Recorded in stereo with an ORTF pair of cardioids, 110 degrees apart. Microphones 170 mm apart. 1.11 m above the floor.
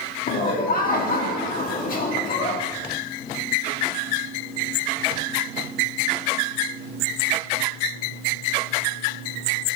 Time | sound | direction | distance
0.3 | laughter | 55° left | 1.8 m